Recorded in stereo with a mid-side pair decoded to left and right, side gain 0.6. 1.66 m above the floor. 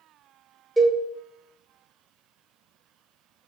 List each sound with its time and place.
0.8 s a cowbell: 15° right, 1.2 m